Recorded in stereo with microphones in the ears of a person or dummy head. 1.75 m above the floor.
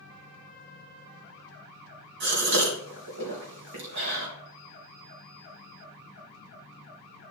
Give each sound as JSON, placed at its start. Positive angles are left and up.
{"t": 2.2, "sound": "a gasp", "side_deg": -60, "distance_m": 3.0}